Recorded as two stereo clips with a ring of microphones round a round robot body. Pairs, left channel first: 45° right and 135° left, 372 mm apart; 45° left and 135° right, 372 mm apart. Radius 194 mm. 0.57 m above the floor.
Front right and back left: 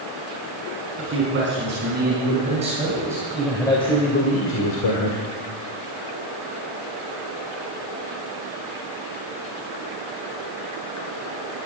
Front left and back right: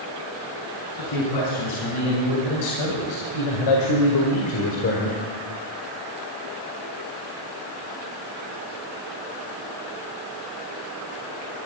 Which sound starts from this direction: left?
A man speaking, at 1.0 s.